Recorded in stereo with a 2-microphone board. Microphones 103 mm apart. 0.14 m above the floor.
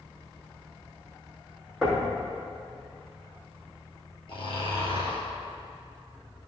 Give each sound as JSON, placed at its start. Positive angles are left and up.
{"t": 1.8, "sound": "knocking", "side_deg": 0, "distance_m": 3.5}
{"t": 4.3, "sound": "snoring", "side_deg": 55, "distance_m": 3.0}